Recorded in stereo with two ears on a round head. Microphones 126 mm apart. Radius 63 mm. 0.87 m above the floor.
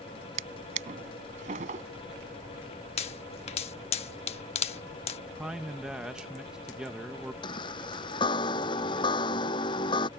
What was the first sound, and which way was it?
A drawer, 60° right (ahead or behind).